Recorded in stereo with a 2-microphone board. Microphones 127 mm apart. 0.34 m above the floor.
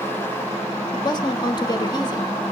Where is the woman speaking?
35° left (ahead or behind), 1.4 m.